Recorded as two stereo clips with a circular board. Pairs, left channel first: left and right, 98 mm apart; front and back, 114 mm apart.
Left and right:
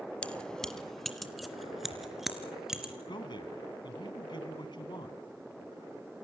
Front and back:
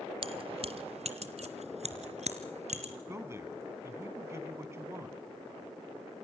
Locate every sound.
0.2 s keys jangling: 165° left, 1.4 m; by 2.9 s 175° right, 4 m
3.1 s a man speaking: 115° left, 3 m